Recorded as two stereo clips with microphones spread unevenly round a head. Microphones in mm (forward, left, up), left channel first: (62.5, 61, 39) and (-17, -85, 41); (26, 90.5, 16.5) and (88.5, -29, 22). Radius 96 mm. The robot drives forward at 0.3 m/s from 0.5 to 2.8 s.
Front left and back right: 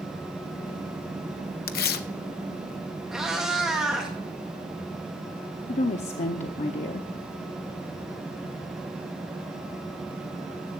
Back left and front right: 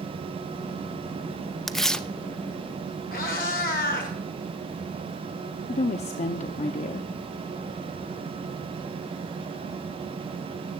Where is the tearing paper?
30° left, 0.8 m; by 2.1 s 35° left, 0.7 m.